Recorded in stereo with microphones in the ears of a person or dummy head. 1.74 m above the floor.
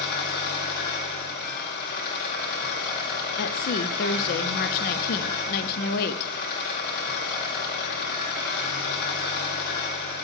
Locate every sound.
0.0 s an engine running: 55° left (ahead or behind), 3 m
3.4 s a woman speaking: 45° left (ahead or behind), 0.6 m